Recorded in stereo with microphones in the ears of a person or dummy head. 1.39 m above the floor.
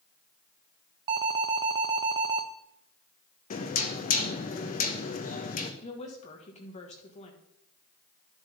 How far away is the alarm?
About 0.6 m.